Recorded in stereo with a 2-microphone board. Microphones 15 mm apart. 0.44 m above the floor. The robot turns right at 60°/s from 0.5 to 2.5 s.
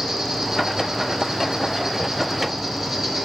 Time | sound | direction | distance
0.0 | an insect | 145° right | 3 m